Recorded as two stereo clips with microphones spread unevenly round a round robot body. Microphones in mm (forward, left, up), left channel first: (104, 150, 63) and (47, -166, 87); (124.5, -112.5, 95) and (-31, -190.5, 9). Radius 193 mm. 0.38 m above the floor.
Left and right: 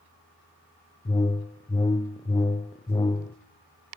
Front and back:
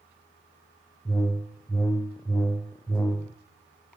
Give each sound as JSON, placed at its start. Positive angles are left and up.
{"t": 1.1, "sound": "a whoosh", "azimuth_deg": 140, "distance_m": 0.5}